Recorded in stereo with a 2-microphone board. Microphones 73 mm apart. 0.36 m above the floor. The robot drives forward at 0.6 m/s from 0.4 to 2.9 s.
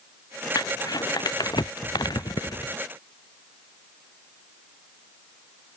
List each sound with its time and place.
0.6 s crumpling: 75° left (ahead or behind); by 2.8 s 85° left